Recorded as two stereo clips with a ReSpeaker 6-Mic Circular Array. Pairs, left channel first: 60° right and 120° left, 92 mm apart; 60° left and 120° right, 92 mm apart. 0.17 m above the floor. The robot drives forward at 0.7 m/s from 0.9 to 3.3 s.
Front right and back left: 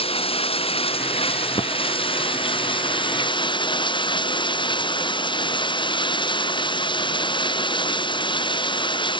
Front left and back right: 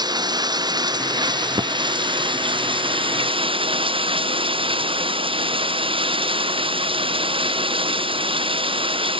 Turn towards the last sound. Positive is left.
turn(degrees=-95)